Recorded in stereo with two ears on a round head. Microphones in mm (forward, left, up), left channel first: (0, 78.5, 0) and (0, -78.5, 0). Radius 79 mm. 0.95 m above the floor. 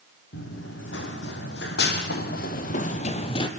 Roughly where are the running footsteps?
Left.